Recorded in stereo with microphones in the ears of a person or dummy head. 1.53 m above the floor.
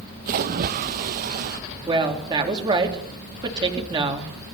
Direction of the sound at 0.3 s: 50° right (ahead or behind).